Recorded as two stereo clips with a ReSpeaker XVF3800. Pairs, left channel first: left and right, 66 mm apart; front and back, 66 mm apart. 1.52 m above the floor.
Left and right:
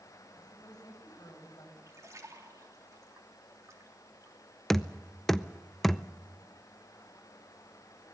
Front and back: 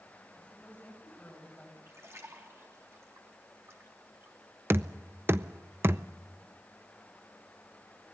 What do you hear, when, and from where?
0.4 s a woman speaking: 70° left, 7.5 m
1.9 s a splash: 135° right, 3 m
4.7 s knocking: 170° left, 0.5 m